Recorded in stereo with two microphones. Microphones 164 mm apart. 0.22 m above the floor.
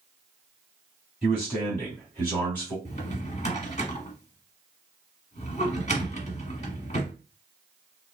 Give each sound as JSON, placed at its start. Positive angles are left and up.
{"t": 1.2, "sound": "a man speaking", "side_deg": 0, "distance_m": 1.8}
{"t": 2.9, "sound": "a drawer", "side_deg": 45, "distance_m": 1.0}